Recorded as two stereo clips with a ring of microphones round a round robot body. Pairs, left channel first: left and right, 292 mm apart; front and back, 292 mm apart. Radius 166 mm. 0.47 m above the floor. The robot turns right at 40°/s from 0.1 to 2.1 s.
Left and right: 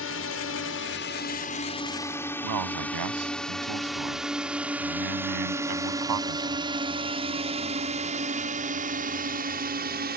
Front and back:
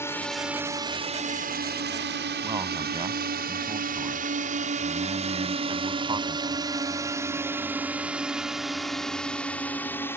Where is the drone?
80° left; by 10.2 s 75° right.